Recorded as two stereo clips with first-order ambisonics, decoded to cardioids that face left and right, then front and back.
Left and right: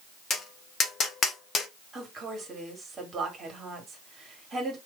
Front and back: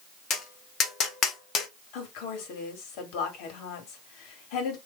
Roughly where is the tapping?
Ahead left.